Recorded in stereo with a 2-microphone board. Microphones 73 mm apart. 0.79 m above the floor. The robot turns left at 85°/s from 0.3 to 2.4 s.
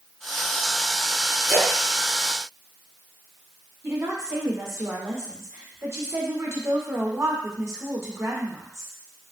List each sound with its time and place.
1.5 s a splash: centre (ahead or behind), 2.5 m; by 3.2 s 80° right, 2.5 m
3.8 s a woman speaking: 40° right (ahead or behind), 1.5 m